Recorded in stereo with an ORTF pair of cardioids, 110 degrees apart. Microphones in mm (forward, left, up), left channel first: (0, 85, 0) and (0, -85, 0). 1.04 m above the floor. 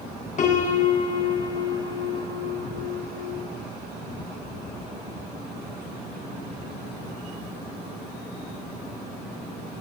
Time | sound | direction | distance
0.4 | a piano | 45° left | 9 m